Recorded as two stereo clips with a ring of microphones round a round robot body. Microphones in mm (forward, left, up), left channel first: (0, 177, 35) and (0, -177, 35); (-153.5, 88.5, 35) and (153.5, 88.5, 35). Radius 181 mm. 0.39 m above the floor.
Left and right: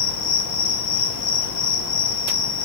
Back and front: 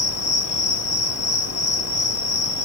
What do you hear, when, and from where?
0.0 s an insect: 140° left, 0.9 m